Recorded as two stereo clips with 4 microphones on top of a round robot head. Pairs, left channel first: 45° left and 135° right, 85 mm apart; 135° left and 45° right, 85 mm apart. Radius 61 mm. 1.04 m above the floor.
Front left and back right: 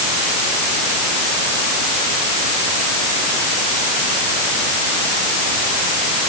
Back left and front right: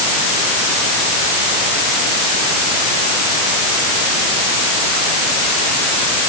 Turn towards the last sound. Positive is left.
No sound to turn to.